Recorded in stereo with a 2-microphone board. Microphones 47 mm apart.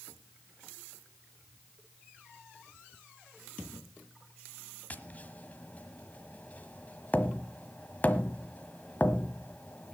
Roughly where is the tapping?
Left.